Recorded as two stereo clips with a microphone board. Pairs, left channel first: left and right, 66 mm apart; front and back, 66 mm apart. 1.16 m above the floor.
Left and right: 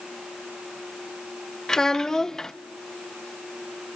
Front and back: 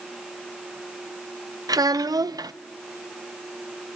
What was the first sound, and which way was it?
A child speaking, 170° left.